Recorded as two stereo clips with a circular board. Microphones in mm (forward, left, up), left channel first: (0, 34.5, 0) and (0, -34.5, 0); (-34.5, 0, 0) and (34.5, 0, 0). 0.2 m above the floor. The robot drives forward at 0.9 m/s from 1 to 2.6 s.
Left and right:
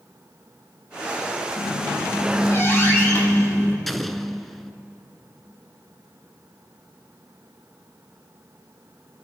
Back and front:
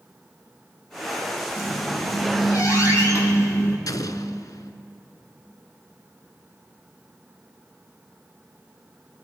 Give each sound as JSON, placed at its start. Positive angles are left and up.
{"t": 1.6, "sound": "a squeak", "azimuth_deg": 130, "distance_m": 2.5}
{"t": 3.9, "sound": "an explosion", "azimuth_deg": 180, "distance_m": 0.7}